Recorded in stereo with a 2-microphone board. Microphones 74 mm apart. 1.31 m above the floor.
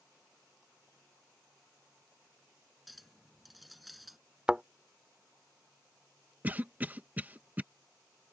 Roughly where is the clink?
Centre.